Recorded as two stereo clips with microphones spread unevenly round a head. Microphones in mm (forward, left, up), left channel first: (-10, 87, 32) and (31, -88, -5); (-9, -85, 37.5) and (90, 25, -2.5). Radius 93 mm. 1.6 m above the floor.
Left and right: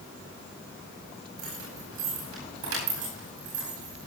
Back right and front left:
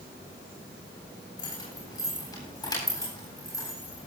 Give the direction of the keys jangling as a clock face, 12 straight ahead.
2 o'clock.